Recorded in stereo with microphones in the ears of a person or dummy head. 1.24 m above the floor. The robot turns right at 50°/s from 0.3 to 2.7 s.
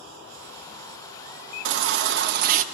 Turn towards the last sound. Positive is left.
turn(degrees=-45)